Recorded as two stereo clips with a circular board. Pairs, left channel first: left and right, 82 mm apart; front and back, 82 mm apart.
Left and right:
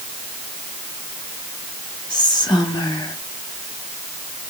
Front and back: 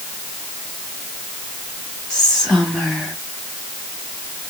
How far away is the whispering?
About 2.0 m.